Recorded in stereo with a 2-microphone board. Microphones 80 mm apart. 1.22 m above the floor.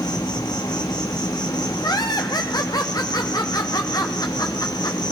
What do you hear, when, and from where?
0.0 s an insect: 55° left (ahead or behind), 1.5 m
1.8 s laughter: 50° left (ahead or behind), 0.7 m